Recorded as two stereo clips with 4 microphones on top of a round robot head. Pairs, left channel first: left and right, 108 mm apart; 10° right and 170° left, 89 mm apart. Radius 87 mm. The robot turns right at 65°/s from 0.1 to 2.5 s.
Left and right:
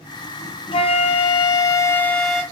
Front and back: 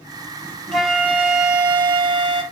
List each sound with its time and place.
0.7 s a flute: 75° left, 1.9 m; by 2.4 s 170° right, 1.9 m